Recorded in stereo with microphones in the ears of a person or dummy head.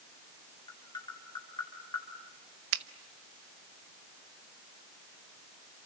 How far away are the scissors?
I don't hear scissors.